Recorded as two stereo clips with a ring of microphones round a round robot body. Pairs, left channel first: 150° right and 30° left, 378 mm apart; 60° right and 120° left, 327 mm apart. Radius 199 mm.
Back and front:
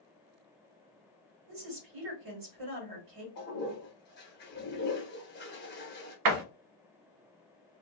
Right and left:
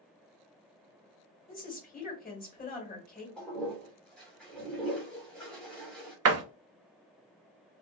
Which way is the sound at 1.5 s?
5° left.